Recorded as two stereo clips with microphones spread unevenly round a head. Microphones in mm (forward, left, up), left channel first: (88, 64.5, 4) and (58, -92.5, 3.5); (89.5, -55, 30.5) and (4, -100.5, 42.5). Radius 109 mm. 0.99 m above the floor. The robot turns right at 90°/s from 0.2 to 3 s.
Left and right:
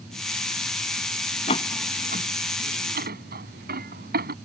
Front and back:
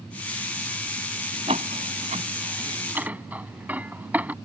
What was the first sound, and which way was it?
A door slam, 145° left.